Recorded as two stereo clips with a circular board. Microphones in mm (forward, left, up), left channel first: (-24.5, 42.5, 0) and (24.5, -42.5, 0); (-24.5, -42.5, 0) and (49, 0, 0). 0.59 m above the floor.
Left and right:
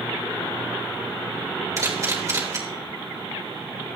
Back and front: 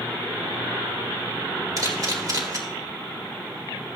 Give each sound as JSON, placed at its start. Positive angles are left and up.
{"t": 1.8, "sound": "a camera shutter", "azimuth_deg": -5, "distance_m": 2.5}